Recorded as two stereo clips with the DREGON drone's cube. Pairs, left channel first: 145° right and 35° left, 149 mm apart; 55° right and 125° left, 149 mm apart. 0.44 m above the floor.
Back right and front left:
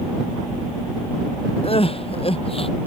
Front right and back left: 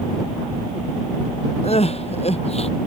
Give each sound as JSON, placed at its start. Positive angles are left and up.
{"t": 1.6, "sound": "crying", "azimuth_deg": -100}